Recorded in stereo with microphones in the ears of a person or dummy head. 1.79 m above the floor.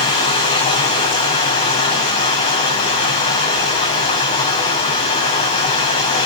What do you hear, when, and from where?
0.0 s running water: 35° left (ahead or behind), 9 m